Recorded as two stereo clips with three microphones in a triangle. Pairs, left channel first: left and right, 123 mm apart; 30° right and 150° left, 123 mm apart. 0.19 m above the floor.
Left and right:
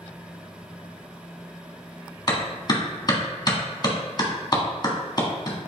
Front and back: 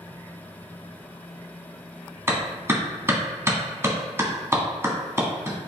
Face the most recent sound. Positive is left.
turn(degrees=100)